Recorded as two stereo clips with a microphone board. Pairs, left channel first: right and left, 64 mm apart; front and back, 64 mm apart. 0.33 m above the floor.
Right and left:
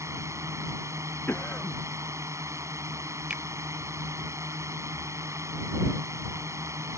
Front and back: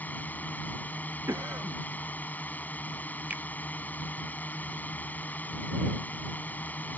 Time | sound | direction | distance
0.0 | a drone | 60° left | ?
1.3 | a cough | 150° right | ?
3.3 | a finger snap | 145° left | ?